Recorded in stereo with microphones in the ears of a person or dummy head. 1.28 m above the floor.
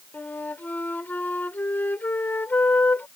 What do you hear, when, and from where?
0.1 s a flute: 15° left (ahead or behind)